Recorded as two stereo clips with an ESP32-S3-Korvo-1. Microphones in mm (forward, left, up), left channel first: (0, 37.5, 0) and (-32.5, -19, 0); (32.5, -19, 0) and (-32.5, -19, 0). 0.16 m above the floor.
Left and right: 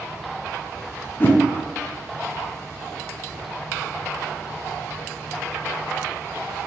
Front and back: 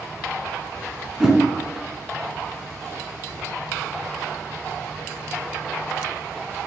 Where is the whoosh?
100° left, 0.6 m.